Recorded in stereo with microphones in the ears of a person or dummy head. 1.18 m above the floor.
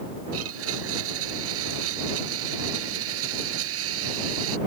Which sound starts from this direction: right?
A blender, at 0.3 s.